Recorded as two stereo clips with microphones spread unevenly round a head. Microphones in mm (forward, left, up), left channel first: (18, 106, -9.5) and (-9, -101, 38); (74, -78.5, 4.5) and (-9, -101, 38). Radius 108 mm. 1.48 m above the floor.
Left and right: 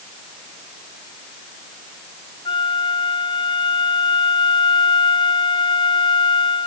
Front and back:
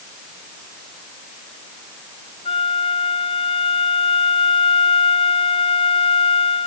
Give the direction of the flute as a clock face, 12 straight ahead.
12 o'clock.